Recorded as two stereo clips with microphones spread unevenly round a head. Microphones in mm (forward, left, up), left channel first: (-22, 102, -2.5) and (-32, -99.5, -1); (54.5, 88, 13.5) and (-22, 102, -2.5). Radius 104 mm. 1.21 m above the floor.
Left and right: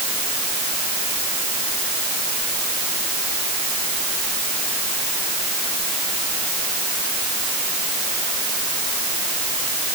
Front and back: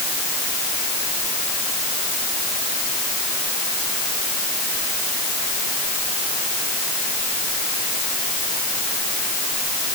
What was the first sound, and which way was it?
Only background noise.